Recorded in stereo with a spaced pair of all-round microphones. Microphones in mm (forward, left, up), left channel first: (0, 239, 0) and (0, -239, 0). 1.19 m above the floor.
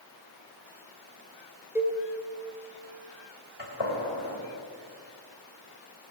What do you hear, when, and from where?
1.8 s a cowbell: 5° right (ahead or behind), 2 m
3.6 s a gunshot: 70° left (ahead or behind), 3 m